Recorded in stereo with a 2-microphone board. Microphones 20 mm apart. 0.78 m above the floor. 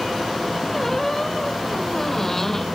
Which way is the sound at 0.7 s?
15° left (ahead or behind).